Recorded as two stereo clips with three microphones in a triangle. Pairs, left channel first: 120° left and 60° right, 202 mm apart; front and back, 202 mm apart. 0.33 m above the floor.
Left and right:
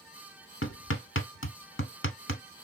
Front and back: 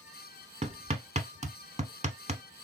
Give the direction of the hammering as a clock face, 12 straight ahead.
8 o'clock.